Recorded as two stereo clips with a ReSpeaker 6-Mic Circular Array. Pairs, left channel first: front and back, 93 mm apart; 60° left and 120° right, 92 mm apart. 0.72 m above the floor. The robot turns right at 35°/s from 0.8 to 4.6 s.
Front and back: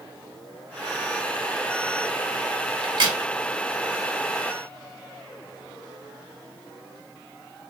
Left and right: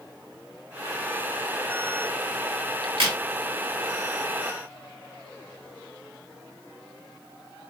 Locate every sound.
2.8 s a crack: 150° right, 1.2 m; by 3.2 s 140° right, 1.2 m